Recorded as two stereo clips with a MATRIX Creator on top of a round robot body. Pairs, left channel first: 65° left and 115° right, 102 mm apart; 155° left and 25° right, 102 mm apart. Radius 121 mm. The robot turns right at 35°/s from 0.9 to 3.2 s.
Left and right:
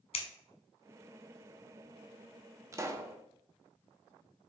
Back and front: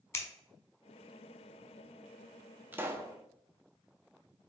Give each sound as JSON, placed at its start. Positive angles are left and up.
{"t": 0.1, "sound": "scissors", "azimuth_deg": 95, "distance_m": 0.8}
{"t": 2.7, "sound": "a pop", "azimuth_deg": -80, "distance_m": 0.8}